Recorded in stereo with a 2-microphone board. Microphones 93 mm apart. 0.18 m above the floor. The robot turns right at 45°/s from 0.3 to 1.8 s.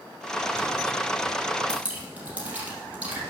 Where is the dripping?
10° right (ahead or behind), 3.5 m; by 3.2 s 15° right (ahead or behind), 3.5 m.